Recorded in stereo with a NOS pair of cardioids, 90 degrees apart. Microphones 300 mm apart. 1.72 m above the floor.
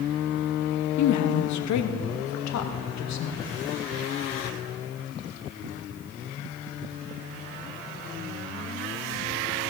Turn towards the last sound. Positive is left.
turn(degrees=65)